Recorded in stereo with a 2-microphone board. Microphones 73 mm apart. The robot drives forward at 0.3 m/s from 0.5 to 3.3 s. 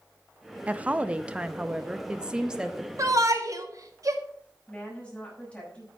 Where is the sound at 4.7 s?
15° left (ahead or behind), 6 m.